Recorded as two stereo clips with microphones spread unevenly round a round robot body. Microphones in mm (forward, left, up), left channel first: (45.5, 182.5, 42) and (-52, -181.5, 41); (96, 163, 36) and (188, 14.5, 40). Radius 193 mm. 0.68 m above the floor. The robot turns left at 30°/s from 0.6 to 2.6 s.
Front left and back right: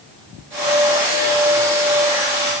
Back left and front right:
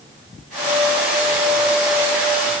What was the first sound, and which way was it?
Only background noise.